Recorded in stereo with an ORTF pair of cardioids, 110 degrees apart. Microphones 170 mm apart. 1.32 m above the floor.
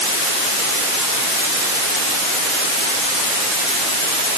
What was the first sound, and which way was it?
Only background noise.